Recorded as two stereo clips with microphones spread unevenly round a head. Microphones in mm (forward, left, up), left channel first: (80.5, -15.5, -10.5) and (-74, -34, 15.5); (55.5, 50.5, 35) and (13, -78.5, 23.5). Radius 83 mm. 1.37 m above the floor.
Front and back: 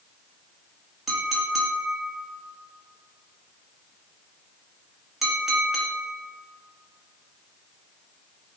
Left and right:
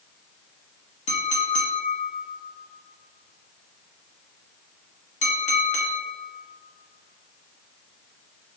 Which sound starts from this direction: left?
A clink, at 1.1 s.